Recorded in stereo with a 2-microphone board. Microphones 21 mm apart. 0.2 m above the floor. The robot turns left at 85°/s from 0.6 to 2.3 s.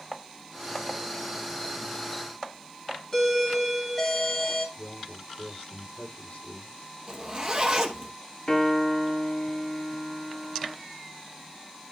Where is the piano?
45° left (ahead or behind), 1.5 m.